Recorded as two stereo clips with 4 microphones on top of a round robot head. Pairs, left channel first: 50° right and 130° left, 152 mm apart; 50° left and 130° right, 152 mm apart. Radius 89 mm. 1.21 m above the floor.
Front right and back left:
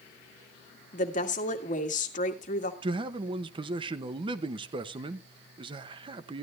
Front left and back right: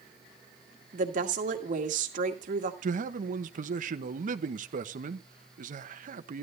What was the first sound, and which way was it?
A woman speaking, 90° right.